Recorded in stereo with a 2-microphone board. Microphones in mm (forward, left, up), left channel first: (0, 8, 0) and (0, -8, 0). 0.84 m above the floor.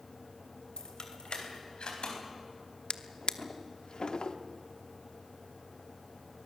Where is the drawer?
65° left (ahead or behind), 0.9 m.